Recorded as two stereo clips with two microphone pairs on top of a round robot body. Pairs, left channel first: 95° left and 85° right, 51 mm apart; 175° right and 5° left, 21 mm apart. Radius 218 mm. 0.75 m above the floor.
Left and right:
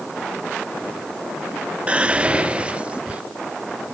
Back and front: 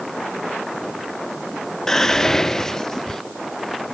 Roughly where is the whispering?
Behind right.